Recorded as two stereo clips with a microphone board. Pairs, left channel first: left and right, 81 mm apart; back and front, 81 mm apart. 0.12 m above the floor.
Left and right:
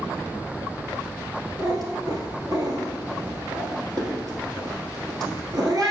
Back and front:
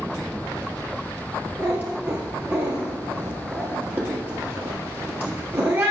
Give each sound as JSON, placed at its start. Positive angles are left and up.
{"t": 1.6, "sound": "a cat meowing", "azimuth_deg": -60, "distance_m": 1.4}